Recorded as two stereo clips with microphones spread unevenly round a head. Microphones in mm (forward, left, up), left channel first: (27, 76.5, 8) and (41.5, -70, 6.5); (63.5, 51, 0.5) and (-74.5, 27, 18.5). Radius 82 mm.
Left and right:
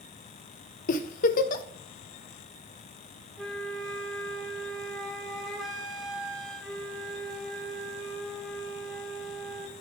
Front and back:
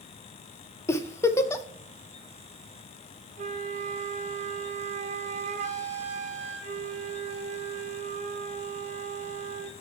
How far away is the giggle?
About 0.6 m.